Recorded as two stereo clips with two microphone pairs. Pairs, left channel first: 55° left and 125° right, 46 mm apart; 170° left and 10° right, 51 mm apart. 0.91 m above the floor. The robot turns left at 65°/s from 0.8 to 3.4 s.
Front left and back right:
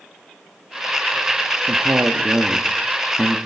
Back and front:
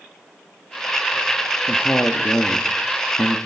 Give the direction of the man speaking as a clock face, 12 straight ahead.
4 o'clock.